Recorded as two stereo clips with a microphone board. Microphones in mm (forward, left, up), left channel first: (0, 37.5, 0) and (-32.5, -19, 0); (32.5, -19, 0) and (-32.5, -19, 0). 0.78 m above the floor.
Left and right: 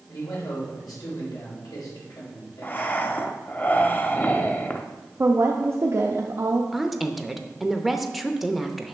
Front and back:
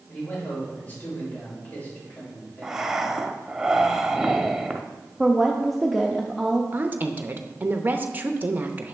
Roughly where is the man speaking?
Ahead left.